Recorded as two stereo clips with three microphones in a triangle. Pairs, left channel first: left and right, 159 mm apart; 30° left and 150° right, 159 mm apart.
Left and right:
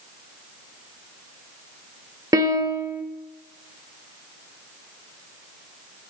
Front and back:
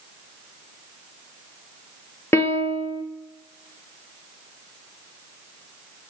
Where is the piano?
35° right, 1.1 m.